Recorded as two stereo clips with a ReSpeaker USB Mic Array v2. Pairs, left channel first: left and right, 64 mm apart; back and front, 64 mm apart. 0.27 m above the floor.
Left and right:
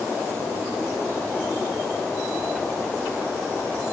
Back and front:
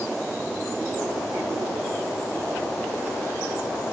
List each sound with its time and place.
Only background noise.